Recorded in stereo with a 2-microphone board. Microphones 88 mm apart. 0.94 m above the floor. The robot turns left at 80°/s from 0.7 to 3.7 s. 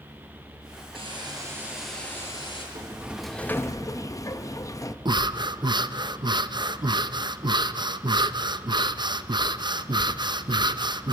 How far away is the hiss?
About 5 m.